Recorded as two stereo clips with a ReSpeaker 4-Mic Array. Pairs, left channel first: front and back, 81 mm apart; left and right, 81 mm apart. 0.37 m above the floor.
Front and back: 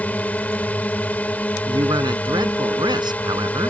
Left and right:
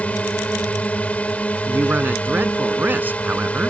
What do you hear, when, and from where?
0.0 s a drone: 40° left
1.7 s a man speaking: 155° right